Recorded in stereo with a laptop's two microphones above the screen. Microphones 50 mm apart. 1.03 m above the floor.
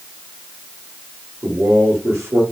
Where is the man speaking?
45° right (ahead or behind), 1.2 m.